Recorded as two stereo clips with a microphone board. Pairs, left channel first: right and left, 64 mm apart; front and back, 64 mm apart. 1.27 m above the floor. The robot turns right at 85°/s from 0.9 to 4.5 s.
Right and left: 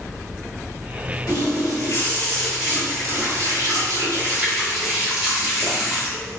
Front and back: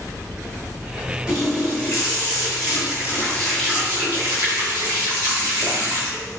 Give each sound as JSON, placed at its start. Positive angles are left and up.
{"t": 1.3, "sound": "a running tap", "azimuth_deg": -105, "distance_m": 1.4}